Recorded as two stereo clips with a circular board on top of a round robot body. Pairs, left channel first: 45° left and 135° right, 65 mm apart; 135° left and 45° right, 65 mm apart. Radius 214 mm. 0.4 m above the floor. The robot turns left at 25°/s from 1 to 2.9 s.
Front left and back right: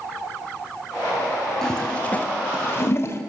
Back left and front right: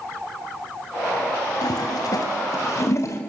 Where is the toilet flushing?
125° left, 3 m; by 3.2 s 95° left, 3 m.